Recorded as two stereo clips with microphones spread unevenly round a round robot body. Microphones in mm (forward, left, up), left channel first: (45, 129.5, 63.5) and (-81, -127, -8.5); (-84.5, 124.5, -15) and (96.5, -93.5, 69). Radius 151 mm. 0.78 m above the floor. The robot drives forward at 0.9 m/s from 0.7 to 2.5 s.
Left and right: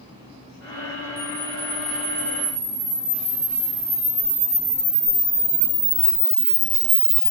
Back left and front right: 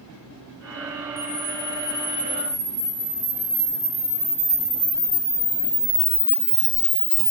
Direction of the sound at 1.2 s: 175° right.